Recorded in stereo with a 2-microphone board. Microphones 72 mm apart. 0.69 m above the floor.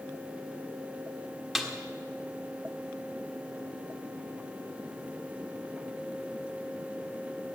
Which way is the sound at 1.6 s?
Centre (ahead or behind).